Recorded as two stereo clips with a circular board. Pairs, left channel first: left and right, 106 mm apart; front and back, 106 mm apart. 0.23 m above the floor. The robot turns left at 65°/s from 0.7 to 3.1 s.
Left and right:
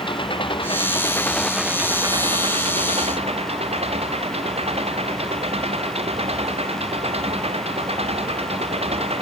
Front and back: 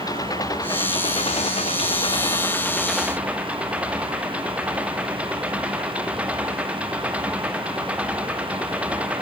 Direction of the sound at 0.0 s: 55° left.